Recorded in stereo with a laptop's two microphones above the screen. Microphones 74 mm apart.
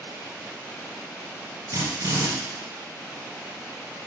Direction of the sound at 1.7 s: 60° right (ahead or behind).